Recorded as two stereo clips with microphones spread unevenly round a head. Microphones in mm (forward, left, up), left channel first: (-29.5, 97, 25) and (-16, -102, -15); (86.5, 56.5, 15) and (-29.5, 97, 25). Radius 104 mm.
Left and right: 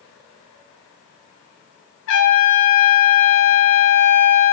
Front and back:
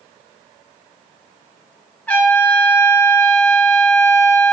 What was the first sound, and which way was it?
A trumpet, 60° left.